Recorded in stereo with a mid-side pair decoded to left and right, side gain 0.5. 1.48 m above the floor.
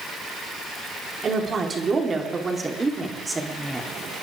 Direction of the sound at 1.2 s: 40° right.